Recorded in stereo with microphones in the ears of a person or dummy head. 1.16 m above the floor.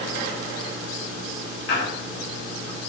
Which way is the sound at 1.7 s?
50° left (ahead or behind).